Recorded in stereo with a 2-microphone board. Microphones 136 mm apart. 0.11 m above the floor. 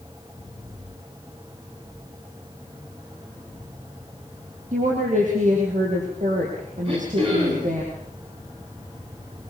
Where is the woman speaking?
70° right (ahead or behind), 4.5 m.